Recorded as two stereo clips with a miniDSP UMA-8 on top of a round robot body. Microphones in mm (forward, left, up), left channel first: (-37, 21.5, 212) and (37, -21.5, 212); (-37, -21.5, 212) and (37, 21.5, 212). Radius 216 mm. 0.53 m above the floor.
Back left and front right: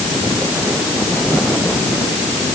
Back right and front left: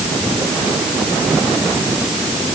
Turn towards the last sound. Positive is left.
No sound to turn to.